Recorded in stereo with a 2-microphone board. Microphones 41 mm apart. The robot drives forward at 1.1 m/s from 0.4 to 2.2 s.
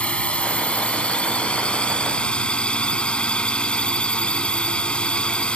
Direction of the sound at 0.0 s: 30° left (ahead or behind).